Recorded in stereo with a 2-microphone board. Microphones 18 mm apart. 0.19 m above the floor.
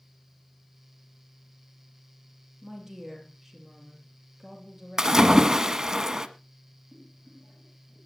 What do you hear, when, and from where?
2.6 s a woman speaking: 5° right (ahead or behind), 4.5 m
5.0 s a splash: 30° right (ahead or behind), 1.0 m
6.9 s boiling: 20° right (ahead or behind), 10 m